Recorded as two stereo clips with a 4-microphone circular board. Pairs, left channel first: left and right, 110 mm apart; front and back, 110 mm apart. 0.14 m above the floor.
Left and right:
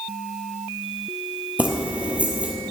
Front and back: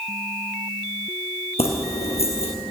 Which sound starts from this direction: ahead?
Keys jangling, at 1.6 s.